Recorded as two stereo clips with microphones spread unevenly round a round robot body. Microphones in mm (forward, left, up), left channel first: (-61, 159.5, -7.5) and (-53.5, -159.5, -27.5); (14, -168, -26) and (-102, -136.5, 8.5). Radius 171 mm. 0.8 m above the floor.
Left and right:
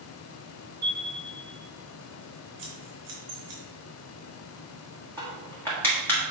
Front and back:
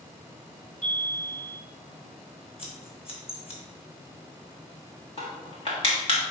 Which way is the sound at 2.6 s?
60° right.